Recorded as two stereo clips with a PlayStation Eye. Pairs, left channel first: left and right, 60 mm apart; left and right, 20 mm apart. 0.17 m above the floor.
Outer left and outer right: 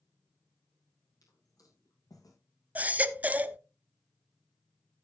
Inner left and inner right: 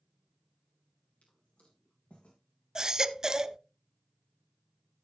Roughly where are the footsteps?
Left.